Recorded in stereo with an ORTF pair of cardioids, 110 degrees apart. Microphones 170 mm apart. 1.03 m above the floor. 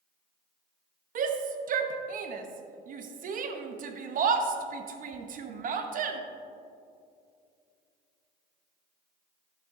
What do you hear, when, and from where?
1.1 s a shout: 50° right, 1.0 m